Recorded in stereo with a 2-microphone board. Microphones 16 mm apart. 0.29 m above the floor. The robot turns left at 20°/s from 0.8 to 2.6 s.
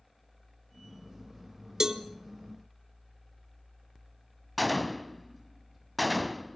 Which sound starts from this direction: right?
A cowbell, at 1.8 s.